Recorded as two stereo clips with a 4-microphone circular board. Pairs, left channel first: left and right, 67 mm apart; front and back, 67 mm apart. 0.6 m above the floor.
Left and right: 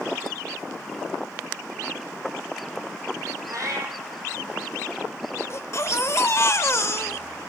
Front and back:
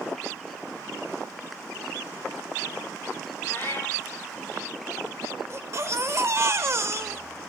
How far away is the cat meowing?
About 2 m.